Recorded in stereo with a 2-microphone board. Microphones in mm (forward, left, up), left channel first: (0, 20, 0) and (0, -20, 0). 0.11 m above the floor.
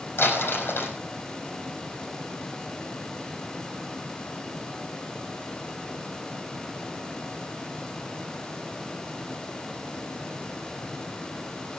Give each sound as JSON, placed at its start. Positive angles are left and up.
{"t": 0.2, "sound": "crumpling", "side_deg": 55, "distance_m": 4.5}